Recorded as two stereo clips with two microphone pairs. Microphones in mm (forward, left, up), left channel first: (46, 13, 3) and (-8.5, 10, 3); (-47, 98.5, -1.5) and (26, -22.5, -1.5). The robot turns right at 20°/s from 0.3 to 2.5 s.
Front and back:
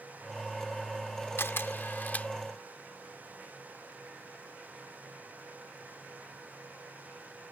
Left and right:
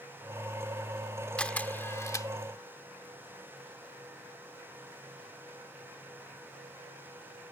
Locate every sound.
1.4 s a camera shutter: 40° left; by 2.3 s 60° left